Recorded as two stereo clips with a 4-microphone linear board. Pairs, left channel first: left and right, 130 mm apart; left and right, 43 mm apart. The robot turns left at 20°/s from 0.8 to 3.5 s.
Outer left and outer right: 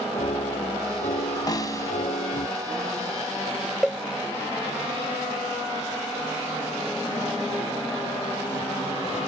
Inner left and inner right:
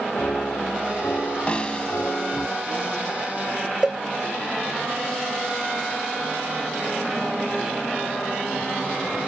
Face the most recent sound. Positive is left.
turn(degrees=-5)  # may be behind; listen again after turning